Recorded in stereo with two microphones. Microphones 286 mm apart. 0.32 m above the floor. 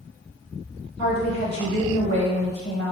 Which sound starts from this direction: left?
A woman speaking, at 1.0 s.